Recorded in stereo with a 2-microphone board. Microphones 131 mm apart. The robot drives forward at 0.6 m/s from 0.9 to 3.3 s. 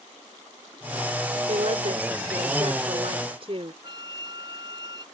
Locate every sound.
1.5 s a woman speaking: 60° right (ahead or behind); by 3.7 s 45° right (ahead or behind)
3.8 s a flute: 35° right (ahead or behind)